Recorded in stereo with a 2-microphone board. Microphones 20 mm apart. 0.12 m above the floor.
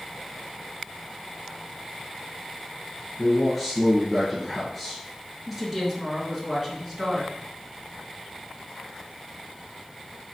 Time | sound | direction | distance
3.2 | a man speaking | 5° left (ahead or behind) | 1.7 m
5.5 | a woman speaking | 20° right (ahead or behind) | 1.5 m